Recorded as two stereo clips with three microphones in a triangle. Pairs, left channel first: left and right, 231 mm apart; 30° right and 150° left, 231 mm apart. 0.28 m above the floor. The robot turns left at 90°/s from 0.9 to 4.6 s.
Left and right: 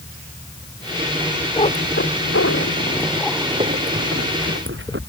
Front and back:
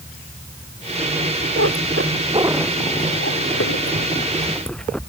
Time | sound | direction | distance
1.6 | a cat meowing | 155° left | ?